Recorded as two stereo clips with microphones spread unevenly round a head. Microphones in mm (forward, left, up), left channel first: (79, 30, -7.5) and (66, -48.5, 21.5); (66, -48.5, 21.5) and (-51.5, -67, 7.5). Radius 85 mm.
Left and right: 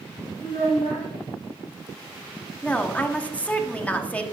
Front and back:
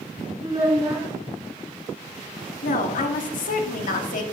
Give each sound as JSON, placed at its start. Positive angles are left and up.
{"t": 0.4, "sound": "a child speaking", "azimuth_deg": 125, "distance_m": 2.0}
{"t": 2.6, "sound": "a woman speaking", "azimuth_deg": 5, "distance_m": 1.0}